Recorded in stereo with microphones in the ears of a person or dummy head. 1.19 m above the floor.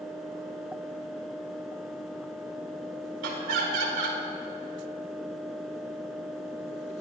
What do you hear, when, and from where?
3.2 s laughter: 65° right (ahead or behind), 4 m